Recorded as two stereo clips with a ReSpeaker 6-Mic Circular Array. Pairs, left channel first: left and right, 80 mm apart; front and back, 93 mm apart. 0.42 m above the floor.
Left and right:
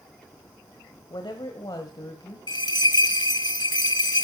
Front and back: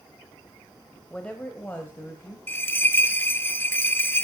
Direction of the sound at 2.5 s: 65° left.